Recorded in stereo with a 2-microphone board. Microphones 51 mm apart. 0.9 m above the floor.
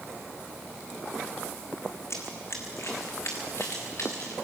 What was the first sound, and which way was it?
Running footsteps, 60° left (ahead or behind).